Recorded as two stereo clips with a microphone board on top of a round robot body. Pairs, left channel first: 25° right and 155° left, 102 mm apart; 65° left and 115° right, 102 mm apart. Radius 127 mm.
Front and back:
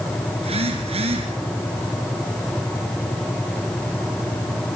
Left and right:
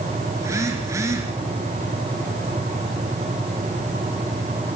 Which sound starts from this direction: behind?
A phone buzzing, at 0.4 s.